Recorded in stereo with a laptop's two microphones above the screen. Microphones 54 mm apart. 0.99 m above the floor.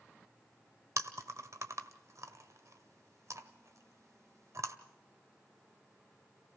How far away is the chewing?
About 1.5 m.